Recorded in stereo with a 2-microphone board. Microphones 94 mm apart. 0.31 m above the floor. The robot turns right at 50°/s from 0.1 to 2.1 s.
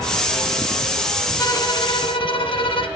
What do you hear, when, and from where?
1.4 s a violin: 40° left, 1.1 m; by 2.9 s 75° left, 1.1 m